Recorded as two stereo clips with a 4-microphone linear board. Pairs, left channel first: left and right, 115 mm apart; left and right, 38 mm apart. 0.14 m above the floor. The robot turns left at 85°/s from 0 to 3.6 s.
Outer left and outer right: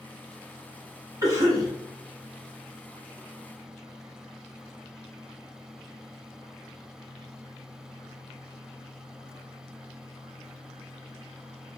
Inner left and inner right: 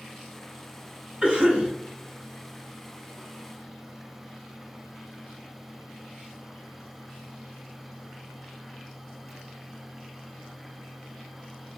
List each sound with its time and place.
1.2 s a cough: 65° right, 1.2 m; by 1.7 s 105° right, 1.2 m